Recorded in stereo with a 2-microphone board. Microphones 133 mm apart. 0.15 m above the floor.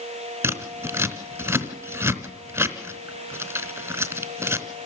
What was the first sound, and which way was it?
Scissors, 15° right (ahead or behind).